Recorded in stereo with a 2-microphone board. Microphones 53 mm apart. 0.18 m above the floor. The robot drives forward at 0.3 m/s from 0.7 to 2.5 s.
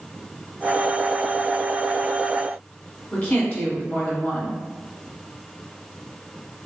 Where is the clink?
I don't hear a clink.